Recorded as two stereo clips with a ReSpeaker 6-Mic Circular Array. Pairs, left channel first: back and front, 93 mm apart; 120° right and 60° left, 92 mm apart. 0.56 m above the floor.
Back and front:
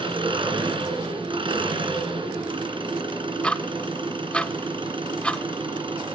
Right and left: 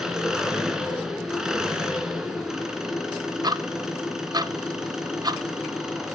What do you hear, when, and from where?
0.0 s an engine running: 25° right, 2 m
3.4 s ticking: 100° left, 0.5 m